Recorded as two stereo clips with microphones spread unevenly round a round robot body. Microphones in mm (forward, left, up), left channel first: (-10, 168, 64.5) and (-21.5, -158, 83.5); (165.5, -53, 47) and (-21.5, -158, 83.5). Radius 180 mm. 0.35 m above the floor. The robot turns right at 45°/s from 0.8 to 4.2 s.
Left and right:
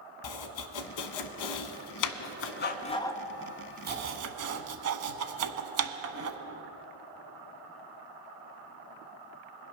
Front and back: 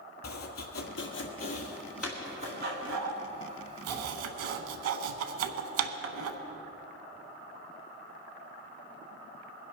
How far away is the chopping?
About 0.8 m.